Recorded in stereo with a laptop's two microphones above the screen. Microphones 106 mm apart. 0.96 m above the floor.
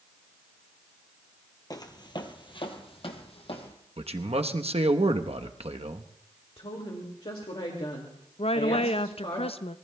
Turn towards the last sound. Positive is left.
turn(degrees=65)  # may be behind; listen again after turning